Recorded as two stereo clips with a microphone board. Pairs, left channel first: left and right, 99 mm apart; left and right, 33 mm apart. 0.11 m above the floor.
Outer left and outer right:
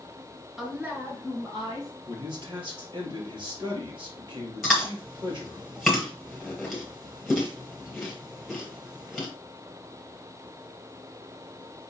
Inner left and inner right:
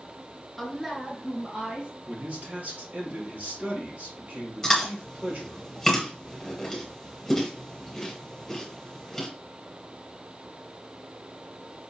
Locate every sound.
0.6 s a woman speaking: centre (ahead or behind), 1.3 m; by 1.9 s 50° right (ahead or behind), 2 m
2.1 s a man speaking: 55° right (ahead or behind), 2.5 m
4.6 s chewing: centre (ahead or behind), 2.5 m